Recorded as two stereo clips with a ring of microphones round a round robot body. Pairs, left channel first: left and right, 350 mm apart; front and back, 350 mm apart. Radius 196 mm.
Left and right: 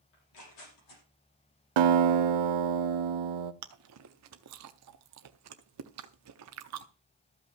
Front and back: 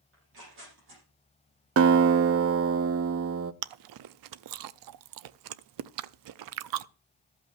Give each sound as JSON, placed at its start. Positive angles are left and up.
{"t": 0.1, "sound": "tearing paper", "azimuth_deg": 120, "distance_m": 6.0}
{"t": 1.8, "sound": "a guitar", "azimuth_deg": -125, "distance_m": 0.6}
{"t": 3.6, "sound": "chewing", "azimuth_deg": -145, "distance_m": 0.5}